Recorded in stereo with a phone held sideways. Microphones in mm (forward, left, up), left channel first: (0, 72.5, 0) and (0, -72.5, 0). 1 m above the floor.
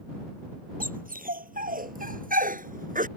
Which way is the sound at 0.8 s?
80° right.